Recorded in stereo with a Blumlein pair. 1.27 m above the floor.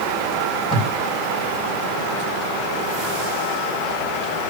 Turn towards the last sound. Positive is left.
turn(degrees=15)